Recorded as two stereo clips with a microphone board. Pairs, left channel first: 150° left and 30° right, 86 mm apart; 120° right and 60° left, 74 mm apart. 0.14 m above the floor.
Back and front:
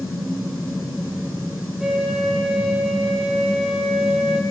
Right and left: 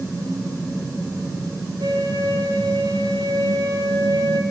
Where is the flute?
55° left, 4 m.